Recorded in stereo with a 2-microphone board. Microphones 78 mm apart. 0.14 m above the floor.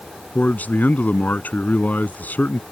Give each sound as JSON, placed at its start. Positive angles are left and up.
{"t": 0.3, "sound": "a man speaking", "side_deg": 20}